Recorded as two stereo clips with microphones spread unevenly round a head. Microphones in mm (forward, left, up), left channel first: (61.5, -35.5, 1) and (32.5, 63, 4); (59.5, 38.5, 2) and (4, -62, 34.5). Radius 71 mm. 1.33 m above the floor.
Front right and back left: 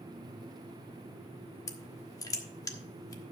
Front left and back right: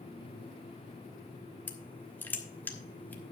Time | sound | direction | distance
1.7 | crushing | 25° right | 1.2 m